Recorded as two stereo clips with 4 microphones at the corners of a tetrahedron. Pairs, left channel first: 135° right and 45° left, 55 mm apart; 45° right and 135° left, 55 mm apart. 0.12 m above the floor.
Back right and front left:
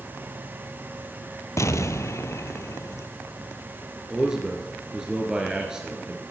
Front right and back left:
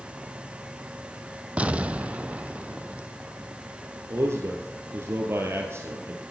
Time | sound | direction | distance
1.6 | an explosion | 160° right | 0.5 m
4.1 | a man speaking | 120° left | 1.9 m